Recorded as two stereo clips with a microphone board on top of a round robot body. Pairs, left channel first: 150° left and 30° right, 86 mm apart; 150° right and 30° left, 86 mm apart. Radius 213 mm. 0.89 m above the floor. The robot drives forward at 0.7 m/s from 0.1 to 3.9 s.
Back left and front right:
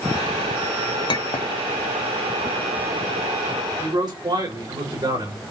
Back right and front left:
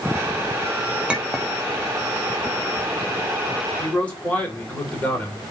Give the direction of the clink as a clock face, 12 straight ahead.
8 o'clock.